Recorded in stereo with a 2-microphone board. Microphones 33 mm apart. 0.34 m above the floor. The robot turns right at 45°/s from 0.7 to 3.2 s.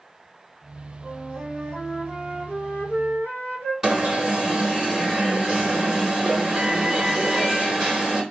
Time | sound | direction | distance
1.0 | a flute | 20° right | 1.7 m
3.8 | an alarm | 15° right (ahead or behind) | 1.0 m